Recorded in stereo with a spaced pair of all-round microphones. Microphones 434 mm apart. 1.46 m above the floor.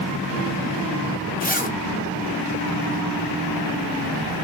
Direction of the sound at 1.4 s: 20° left (ahead or behind).